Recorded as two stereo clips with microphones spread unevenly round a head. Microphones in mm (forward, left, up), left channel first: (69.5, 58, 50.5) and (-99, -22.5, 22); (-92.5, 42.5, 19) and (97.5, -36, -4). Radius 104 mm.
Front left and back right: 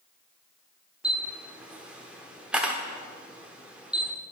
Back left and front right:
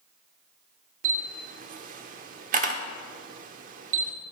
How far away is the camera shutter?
About 0.9 m.